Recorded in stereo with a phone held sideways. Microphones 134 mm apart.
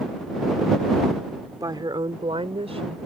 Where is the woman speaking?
30° right (ahead or behind); by 3.0 s 55° right (ahead or behind).